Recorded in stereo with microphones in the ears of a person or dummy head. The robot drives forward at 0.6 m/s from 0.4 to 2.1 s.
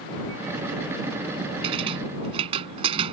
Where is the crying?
I don't hear crying.